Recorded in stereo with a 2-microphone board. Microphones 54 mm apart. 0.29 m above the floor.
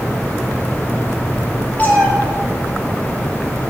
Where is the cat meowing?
30° left (ahead or behind), 4 m.